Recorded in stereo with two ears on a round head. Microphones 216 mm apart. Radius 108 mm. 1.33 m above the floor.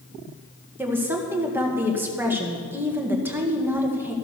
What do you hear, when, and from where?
0.8 s a woman speaking: 10° right (ahead or behind), 1.6 m